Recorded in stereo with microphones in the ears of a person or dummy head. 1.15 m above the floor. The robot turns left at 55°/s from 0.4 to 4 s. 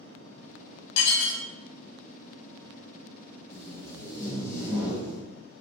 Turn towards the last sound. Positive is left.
turn(degrees=45)  # may be behind; listen again after turning